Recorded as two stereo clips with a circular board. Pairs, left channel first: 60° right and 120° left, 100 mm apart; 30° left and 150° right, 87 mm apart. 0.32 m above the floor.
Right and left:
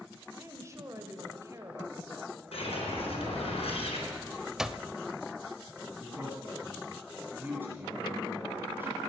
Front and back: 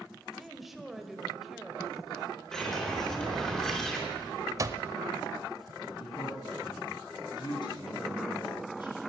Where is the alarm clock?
160° right, 0.5 m.